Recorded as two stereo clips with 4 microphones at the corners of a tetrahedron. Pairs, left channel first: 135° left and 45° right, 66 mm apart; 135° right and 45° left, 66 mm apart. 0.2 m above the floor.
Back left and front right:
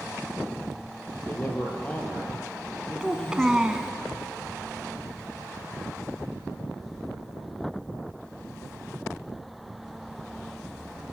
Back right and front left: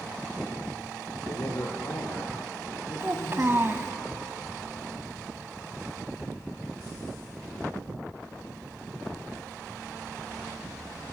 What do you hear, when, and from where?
1.2 s a man speaking: 165° right, 4 m; by 4.0 s 140° right, 5.5 m
3.0 s a child speaking: 25° left, 1.1 m